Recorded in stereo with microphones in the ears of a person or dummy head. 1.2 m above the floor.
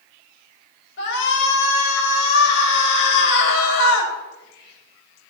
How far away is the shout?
About 5.5 m.